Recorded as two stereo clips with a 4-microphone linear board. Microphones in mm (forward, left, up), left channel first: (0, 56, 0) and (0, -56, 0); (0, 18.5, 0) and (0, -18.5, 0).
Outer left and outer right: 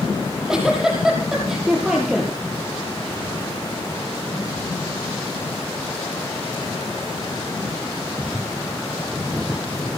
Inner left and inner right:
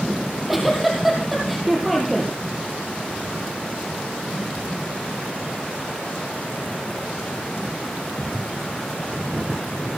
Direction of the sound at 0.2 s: 5° right (ahead or behind).